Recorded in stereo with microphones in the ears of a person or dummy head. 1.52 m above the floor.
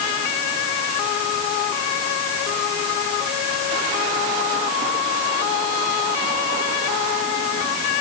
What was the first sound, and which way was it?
Only background noise.